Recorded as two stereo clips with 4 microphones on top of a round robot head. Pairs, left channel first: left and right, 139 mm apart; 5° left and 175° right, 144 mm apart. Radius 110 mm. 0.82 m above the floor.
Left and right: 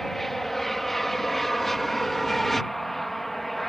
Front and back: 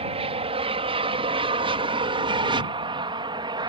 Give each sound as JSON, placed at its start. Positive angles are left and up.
{"t": 0.0, "sound": "an aircraft", "azimuth_deg": 180}